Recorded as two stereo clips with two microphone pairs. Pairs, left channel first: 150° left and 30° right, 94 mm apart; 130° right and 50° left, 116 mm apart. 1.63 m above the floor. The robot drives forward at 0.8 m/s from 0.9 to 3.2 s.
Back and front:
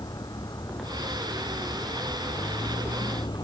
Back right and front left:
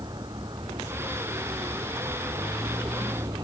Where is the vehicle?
105° left; by 3.5 s 110° left.